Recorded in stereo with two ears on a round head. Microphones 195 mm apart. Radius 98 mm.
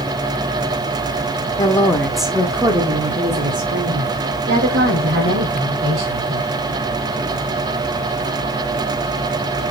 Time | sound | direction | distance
1.6 | a woman speaking | 20° left (ahead or behind) | 1.1 m